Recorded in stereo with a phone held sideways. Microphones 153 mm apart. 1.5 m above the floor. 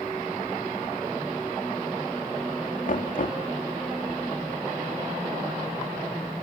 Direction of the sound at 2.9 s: 60° left (ahead or behind).